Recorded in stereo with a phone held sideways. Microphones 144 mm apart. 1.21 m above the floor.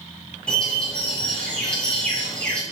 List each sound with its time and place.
0.5 s a bird: 5° left (ahead or behind), 2.5 m